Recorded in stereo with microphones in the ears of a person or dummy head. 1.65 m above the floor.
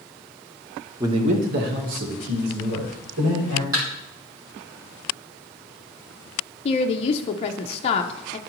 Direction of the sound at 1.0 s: 20° right (ahead or behind).